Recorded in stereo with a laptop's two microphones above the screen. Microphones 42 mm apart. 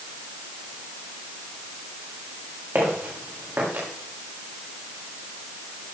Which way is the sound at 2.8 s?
50° right (ahead or behind).